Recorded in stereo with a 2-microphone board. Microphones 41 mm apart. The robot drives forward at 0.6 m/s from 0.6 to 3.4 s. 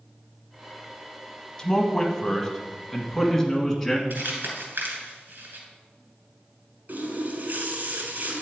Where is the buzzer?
I don't hear a buzzer.